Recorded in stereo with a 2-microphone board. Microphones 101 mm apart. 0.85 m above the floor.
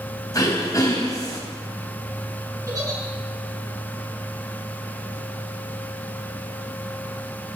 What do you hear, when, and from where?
0.3 s throat clearing: 35° left (ahead or behind), 3.5 m
2.7 s a giggle: 35° right (ahead or behind), 8.5 m